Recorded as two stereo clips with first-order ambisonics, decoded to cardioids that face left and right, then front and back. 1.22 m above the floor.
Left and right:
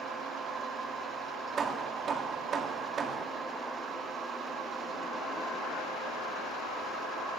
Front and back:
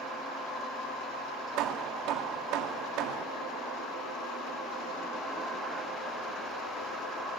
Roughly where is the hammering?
Behind right.